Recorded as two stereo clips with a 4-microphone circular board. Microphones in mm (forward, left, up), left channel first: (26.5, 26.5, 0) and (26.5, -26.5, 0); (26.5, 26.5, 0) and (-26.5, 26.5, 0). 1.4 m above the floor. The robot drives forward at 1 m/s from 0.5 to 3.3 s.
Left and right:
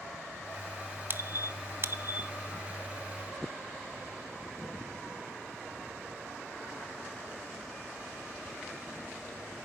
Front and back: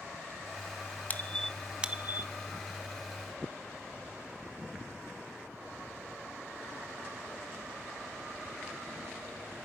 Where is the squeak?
50° right, 0.9 m; by 2.3 s 140° right, 1.0 m.